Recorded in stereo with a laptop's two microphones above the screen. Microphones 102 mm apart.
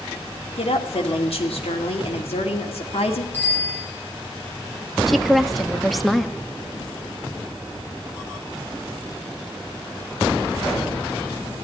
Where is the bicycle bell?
20° left (ahead or behind), 6.5 m.